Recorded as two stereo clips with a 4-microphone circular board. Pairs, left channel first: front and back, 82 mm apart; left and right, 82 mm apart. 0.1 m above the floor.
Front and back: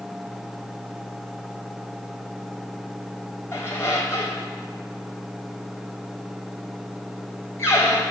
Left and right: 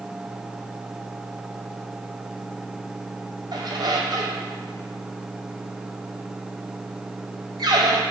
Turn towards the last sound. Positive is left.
turn(degrees=-55)